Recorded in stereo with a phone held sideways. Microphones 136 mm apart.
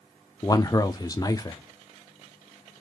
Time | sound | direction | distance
0.4 | a man speaking | 25° left (ahead or behind) | 0.5 m